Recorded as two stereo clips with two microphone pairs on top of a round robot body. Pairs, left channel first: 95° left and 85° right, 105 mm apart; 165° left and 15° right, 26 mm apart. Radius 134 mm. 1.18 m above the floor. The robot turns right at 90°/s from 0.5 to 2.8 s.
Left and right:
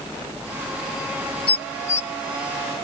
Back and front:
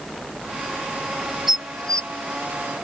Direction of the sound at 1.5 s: 60° left.